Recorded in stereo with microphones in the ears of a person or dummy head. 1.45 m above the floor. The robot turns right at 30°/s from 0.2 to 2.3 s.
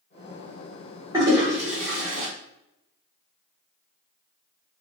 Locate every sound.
1.1 s a toilet flushing: 20° right (ahead or behind), 0.8 m; by 2.3 s 50° right (ahead or behind), 0.8 m